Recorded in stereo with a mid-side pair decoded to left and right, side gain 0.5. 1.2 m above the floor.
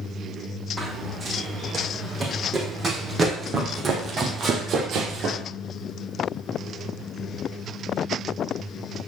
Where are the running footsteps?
30° right, 4 m; by 5.4 s 70° right, 2.5 m.